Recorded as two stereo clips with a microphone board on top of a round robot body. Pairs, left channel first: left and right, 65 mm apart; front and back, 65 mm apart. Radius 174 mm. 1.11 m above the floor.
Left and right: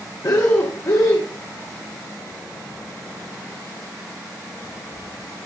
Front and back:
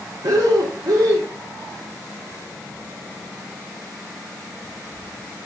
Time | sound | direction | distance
0.2 | breathing | 135° left | 0.6 m